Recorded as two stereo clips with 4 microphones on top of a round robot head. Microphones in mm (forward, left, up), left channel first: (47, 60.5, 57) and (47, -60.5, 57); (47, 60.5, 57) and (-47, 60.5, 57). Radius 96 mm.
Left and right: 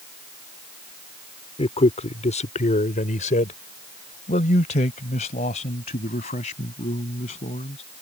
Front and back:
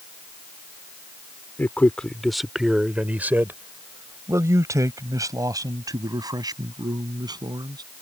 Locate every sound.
1.6 s a man speaking: 65° left; by 7.8 s 135° left